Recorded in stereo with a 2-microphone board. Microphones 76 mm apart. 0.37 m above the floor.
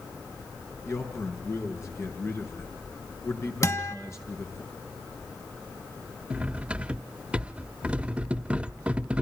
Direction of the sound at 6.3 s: 15° right (ahead or behind).